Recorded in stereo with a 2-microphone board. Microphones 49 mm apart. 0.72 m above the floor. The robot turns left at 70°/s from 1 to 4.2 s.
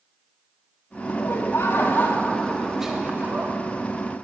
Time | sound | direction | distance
1.1 | laughter | 110° left | 1.3 m